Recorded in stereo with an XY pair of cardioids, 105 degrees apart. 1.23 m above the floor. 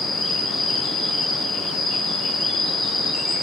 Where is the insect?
70° left, 1.9 m.